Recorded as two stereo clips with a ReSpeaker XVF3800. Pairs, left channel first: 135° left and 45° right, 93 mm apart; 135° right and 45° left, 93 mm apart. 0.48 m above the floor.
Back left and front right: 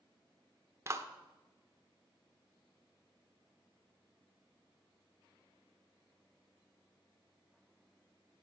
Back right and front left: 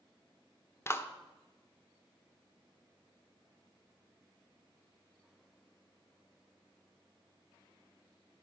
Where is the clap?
85° right, 1.0 m.